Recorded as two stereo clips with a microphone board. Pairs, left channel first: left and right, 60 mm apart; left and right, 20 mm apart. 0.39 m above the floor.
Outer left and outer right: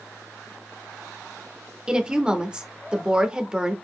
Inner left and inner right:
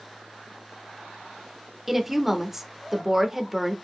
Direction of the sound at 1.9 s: 15° right (ahead or behind).